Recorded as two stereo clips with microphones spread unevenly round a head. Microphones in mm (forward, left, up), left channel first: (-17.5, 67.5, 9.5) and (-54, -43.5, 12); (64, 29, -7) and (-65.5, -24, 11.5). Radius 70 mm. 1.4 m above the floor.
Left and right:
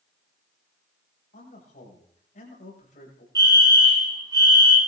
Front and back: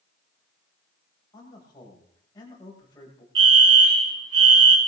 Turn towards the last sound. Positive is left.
turn(degrees=-165)